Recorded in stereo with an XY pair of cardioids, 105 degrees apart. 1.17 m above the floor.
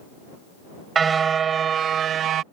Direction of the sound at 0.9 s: 40° right.